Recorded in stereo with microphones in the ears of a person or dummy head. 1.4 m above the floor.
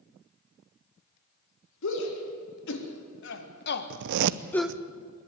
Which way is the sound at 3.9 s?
65° right (ahead or behind).